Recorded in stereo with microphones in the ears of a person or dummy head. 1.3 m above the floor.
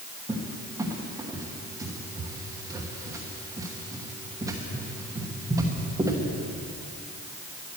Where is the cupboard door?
15° right (ahead or behind), 1.2 m.